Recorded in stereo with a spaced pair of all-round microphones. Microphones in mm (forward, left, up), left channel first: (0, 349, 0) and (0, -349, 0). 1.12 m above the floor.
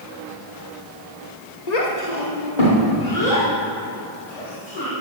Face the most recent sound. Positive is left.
turn(degrees=65)  # may be behind; listen again after turning